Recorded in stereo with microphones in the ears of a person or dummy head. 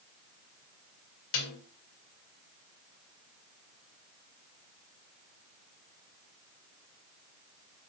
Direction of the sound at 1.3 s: 75° left (ahead or behind).